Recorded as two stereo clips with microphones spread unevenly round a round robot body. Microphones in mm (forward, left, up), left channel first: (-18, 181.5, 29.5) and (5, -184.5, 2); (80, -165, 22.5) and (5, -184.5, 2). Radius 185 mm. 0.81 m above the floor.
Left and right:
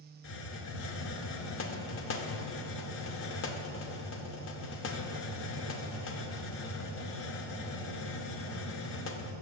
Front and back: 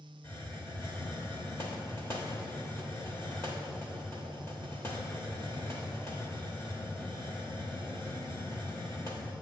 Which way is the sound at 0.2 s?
50° left.